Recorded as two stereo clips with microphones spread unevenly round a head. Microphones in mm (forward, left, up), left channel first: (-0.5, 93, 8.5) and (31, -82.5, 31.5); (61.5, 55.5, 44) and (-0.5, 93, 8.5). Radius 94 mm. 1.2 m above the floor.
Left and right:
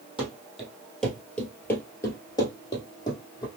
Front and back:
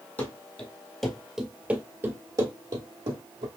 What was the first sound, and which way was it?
Running footsteps, straight ahead.